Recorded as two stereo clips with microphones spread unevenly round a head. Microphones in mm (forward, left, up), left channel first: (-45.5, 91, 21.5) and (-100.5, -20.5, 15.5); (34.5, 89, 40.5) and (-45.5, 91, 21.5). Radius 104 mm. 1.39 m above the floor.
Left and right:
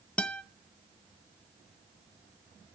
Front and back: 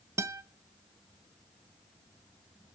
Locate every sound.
0.2 s a guitar: 130° left, 0.6 m